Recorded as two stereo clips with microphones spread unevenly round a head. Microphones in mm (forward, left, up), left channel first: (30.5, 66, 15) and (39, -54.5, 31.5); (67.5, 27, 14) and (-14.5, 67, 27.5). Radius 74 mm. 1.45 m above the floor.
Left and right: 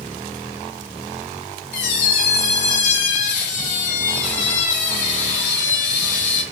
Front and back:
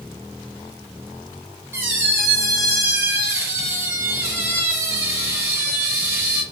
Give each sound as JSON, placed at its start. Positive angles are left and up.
{"t": 1.7, "sound": "a squeak", "azimuth_deg": 100, "distance_m": 1.3}